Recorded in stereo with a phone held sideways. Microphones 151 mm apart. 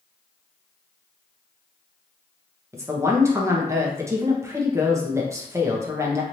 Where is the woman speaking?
20° right (ahead or behind), 1.0 m.